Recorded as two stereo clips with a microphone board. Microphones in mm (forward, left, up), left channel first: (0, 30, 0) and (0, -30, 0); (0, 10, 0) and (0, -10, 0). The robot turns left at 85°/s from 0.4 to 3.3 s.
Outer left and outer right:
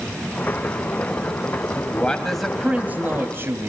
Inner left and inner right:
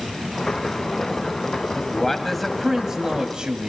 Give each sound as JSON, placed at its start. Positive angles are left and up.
{"t": 1.8, "sound": "a man speaking", "azimuth_deg": 50, "distance_m": 1.7}